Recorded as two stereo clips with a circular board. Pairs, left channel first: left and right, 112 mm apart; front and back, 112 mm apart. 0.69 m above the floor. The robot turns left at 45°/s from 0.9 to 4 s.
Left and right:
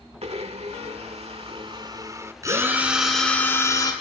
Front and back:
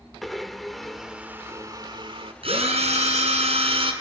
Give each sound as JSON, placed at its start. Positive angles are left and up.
{"t": 0.2, "sound": "a blender", "azimuth_deg": -90, "distance_m": 1.6}
{"t": 2.4, "sound": "a drill", "azimuth_deg": -150, "distance_m": 5.0}